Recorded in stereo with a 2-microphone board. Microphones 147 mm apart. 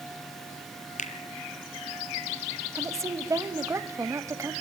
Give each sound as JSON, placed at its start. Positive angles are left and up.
{"t": 1.0, "sound": "a finger snap", "side_deg": 60, "distance_m": 2.0}
{"t": 2.8, "sound": "a woman speaking", "side_deg": -20, "distance_m": 1.2}